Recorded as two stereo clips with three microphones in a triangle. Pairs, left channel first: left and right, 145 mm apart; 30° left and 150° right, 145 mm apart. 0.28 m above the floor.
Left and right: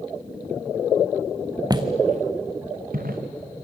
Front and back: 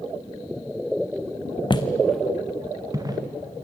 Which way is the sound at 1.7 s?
25° right.